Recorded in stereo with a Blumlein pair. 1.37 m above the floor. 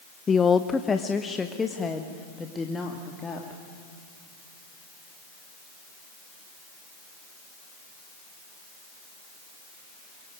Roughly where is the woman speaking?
Ahead.